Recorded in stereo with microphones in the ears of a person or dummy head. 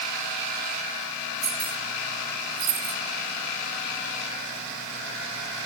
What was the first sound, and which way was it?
Keys jangling, 40° right (ahead or behind).